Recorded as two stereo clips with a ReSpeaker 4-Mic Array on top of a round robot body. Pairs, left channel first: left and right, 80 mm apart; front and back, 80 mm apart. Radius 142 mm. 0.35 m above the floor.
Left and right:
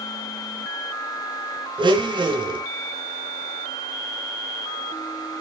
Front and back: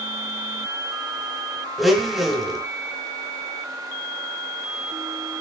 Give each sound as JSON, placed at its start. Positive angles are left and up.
{"t": 1.8, "sound": "a blender", "azimuth_deg": -90, "distance_m": 1.9}